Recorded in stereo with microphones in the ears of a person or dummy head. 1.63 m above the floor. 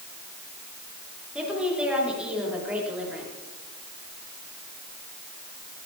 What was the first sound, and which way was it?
A woman speaking, 5° right (ahead or behind).